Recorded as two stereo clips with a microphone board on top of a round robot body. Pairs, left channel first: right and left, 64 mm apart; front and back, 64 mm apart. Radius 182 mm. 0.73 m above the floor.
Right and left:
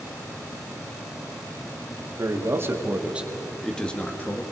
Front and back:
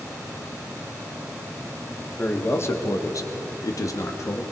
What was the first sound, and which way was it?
A man speaking, 55° left.